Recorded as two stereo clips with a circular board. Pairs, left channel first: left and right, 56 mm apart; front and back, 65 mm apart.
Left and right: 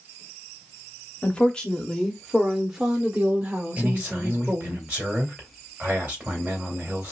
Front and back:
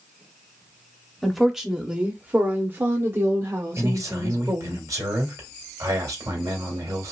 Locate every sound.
1.2 s a woman speaking: 80° left, 1.2 m; by 4.8 s 145° right, 2 m
3.8 s a man speaking: 150° right, 3 m